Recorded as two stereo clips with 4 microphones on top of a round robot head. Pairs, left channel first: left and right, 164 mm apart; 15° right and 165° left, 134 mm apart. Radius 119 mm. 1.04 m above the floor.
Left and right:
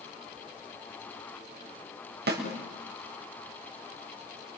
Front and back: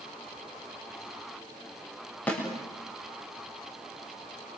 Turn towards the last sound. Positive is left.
turn(degrees=-95)